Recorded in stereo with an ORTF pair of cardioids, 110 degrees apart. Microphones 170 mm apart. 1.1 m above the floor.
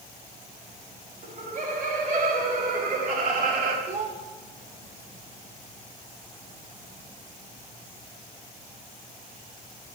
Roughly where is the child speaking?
Ahead right.